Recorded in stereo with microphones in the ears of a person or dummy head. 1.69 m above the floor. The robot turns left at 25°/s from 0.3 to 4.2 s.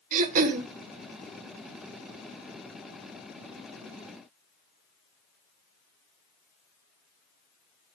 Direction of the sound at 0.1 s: 45° right (ahead or behind).